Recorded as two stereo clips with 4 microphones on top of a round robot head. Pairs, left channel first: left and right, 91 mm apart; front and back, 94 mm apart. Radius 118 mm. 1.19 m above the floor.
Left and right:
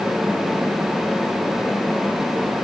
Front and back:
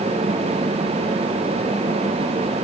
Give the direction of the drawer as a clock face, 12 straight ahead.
I don't hear a drawer.